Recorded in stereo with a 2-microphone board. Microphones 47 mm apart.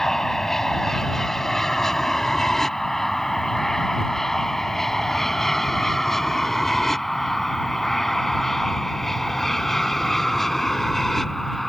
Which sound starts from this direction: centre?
An aircraft, at 0.0 s.